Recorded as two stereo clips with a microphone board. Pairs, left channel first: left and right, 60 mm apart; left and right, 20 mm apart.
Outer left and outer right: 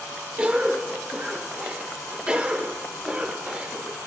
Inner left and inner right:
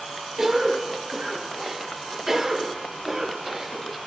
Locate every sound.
0.4 s a cough: 20° right (ahead or behind), 0.9 m